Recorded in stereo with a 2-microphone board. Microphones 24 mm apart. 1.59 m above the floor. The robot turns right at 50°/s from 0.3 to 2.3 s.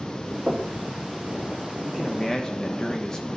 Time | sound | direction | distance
0.5 | knocking | 70° right (ahead or behind) | 3 m
1.9 | a man speaking | 10° left (ahead or behind) | 1.4 m